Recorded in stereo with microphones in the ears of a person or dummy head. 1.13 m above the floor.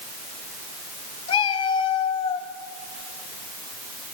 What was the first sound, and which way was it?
A cat meowing, 30° left (ahead or behind).